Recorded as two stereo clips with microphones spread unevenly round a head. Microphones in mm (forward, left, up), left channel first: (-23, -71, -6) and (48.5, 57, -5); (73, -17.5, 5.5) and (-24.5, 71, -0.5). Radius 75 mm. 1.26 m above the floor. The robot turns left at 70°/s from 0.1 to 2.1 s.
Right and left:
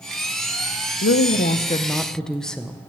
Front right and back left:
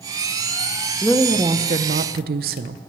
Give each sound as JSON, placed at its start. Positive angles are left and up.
{"t": 1.0, "sound": "a woman speaking", "azimuth_deg": -130, "distance_m": 0.6}